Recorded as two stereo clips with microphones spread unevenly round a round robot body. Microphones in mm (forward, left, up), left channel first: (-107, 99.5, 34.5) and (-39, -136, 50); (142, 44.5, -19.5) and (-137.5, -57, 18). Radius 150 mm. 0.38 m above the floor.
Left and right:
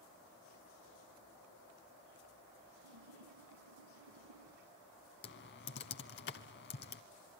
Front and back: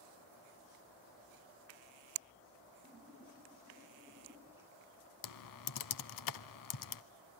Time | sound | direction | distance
2.8 | a splash | 75° right | 1.6 m
5.2 | typing on a keyboard | 50° left | 0.7 m